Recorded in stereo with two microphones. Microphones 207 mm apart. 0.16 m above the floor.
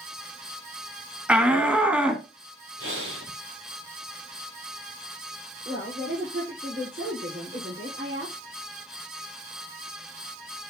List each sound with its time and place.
1.3 s a shout: 5° right (ahead or behind), 1.0 m
2.8 s breathing: 80° right, 5 m
5.7 s a woman speaking: 65° right (ahead or behind), 4 m